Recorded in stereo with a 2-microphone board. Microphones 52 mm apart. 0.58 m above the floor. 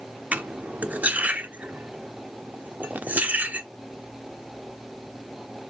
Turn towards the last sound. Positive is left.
turn(degrees=-30)  # may be behind; listen again after turning